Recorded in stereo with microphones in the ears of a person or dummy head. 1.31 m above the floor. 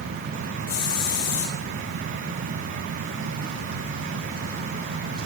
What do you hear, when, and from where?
0.7 s a hiss: 60° left (ahead or behind), 2 m